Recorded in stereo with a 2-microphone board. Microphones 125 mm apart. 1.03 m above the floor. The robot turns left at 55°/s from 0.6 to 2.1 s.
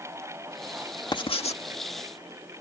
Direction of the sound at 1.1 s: 35° left (ahead or behind).